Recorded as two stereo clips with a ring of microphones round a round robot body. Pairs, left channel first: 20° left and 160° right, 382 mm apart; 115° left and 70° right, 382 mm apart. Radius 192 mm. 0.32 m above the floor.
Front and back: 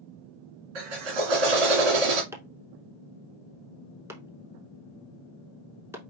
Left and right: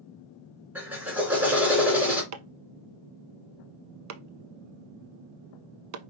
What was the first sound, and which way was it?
A drill, 155° right.